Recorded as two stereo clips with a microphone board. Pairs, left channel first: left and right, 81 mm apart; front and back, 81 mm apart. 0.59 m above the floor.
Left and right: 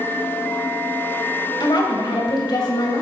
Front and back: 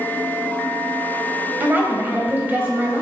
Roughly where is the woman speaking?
Behind left.